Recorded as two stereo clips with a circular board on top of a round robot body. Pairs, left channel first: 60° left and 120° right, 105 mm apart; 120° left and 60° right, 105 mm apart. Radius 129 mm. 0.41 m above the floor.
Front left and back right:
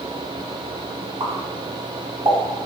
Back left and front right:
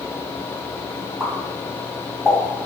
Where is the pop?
145° right, 1.8 m.